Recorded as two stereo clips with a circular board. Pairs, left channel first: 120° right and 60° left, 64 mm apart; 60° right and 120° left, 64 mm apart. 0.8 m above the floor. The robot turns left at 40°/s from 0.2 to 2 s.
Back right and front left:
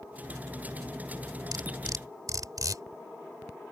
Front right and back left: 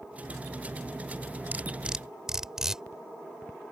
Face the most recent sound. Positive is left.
turn(degrees=40)